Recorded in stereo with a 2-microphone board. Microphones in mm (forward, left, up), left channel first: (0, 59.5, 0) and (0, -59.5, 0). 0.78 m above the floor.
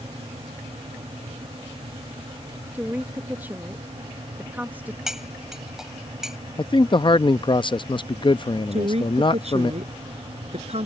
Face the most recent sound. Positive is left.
turn(degrees=-70)  # may be behind; listen again after turning